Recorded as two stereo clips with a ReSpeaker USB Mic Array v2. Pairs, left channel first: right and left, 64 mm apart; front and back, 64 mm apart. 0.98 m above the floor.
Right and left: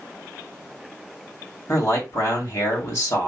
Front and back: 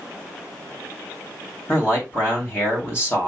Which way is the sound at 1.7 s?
50° right.